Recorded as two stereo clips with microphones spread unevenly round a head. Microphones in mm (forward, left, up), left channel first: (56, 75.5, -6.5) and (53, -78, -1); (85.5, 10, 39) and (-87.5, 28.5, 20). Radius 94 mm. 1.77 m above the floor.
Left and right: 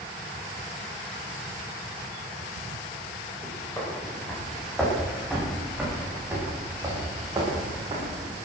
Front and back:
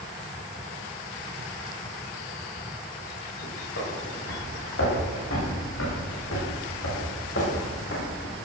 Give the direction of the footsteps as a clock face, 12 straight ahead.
12 o'clock.